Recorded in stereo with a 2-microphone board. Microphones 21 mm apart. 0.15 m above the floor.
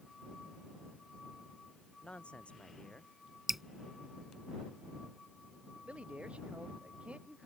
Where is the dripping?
10° right (ahead or behind).